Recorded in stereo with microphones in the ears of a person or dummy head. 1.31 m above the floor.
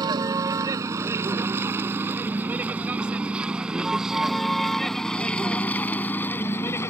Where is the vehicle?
20° right (ahead or behind); by 6.9 s 15° left (ahead or behind).